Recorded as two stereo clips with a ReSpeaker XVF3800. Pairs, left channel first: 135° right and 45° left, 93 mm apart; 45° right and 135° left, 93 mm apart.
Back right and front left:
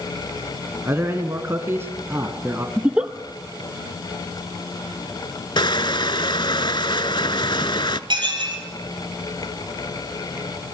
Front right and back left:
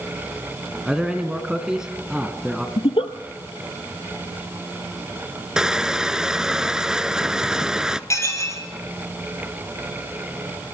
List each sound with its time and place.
0.8 s a man speaking: 60° left, 1.6 m
2.8 s a giggle: 30° right, 0.9 m
5.6 s crushing: 145° right, 0.5 m
8.1 s dishes clattering: 15° left, 2.5 m